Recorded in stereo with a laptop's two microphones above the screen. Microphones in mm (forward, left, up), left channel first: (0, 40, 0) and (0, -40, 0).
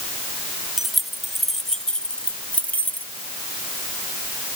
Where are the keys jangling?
5° right (ahead or behind); by 3.1 s 25° left (ahead or behind).